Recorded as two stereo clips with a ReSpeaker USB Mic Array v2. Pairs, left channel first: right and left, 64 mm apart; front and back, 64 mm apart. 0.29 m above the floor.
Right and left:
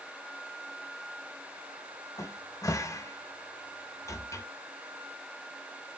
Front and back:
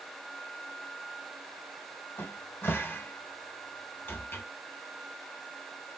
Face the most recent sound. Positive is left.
turn(degrees=-55)